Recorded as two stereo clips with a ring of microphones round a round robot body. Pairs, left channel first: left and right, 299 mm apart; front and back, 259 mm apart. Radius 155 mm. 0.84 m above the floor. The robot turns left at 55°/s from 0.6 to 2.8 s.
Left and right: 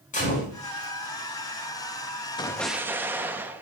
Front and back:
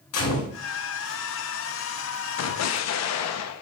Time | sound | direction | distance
0.1 | a gunshot | 25° left | 5 m
2.4 | an explosion | 15° left | 0.7 m